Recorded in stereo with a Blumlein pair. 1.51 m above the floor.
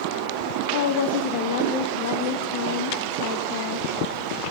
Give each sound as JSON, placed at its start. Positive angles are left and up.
{"t": 0.7, "sound": "a woman speaking", "azimuth_deg": 50, "distance_m": 1.9}